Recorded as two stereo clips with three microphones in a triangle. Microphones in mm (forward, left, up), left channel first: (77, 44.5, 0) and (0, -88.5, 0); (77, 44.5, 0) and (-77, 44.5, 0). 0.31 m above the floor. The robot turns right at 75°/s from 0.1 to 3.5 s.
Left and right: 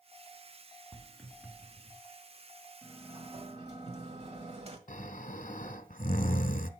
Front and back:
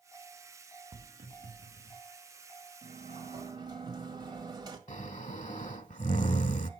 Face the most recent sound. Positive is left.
turn(degrees=35)